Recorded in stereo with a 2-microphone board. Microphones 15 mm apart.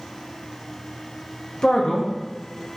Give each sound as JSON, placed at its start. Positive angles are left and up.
{"t": 1.6, "sound": "a man speaking", "side_deg": 65, "distance_m": 1.3}